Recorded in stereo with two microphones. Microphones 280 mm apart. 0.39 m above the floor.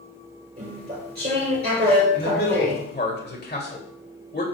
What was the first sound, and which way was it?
Chewing, 35° right (ahead or behind).